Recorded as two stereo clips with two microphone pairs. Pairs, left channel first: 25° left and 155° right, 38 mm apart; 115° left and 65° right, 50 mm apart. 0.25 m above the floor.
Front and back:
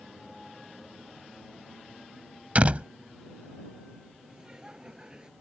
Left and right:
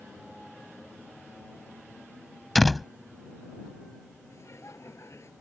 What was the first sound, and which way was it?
A door slam, 155° right.